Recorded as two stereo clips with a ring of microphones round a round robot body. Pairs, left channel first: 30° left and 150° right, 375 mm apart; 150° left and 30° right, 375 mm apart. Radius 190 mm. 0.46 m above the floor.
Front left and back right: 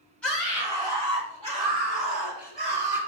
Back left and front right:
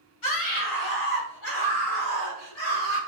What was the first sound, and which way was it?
A scream, 115° left.